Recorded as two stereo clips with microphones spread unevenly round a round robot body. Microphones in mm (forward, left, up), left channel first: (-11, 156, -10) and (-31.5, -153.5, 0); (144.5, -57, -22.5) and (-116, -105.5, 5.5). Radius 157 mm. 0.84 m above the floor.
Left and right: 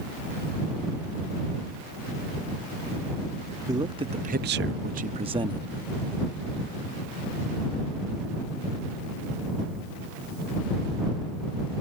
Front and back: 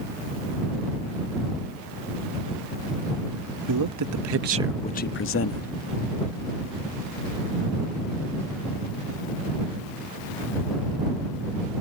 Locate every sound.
3.7 s a man speaking: 175° right; by 5.7 s 15° right